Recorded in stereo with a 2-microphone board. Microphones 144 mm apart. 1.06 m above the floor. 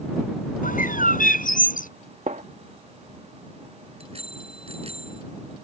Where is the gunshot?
60° right (ahead or behind).